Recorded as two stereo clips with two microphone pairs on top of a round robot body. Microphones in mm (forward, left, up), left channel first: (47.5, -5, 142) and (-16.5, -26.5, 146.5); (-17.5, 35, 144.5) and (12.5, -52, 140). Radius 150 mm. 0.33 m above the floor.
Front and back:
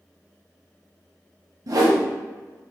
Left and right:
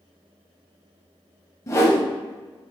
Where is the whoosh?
170° left, 0.9 m.